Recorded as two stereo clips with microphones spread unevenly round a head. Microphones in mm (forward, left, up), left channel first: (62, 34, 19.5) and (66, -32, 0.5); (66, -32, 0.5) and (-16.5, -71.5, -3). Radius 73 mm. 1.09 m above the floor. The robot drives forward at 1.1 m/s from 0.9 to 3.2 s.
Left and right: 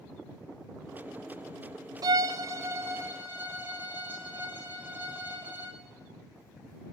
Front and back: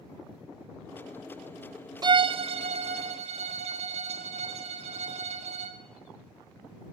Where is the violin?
110° right, 0.6 m; by 5.8 s 160° right, 1.6 m.